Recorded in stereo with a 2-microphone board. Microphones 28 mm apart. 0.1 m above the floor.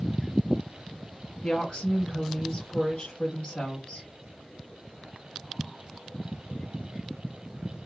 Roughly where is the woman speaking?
Left.